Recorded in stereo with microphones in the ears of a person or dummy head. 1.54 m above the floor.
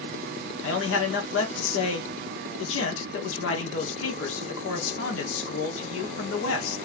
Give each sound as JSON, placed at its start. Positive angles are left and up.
{"t": 0.6, "sound": "a man speaking", "side_deg": 85, "distance_m": 1.9}